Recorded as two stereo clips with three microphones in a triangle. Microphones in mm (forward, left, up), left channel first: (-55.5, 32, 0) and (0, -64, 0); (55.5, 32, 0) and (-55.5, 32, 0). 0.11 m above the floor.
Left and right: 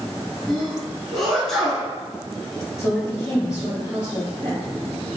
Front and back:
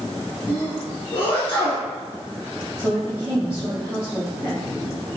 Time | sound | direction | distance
0.5 | a sneeze | 40° left | 1.3 m
2.8 | a woman speaking | 105° left | 1.9 m